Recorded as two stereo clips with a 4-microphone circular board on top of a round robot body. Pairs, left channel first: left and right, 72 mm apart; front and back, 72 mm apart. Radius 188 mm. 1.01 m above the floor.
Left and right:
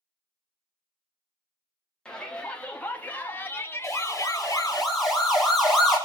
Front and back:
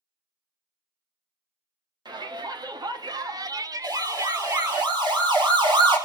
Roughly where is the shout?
Behind.